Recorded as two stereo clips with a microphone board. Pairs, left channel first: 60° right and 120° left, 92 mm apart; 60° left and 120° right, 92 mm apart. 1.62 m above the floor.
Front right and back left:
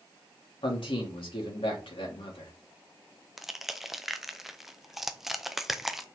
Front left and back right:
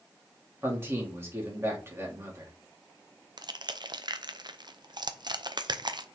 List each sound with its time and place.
0.6 s a man speaking: 60° right, 3 m
3.4 s crushing: 155° right, 0.6 m